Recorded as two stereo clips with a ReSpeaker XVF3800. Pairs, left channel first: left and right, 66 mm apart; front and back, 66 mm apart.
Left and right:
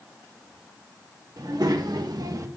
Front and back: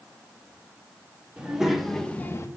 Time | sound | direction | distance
1.4 | a child speaking | 105° right | 1.5 m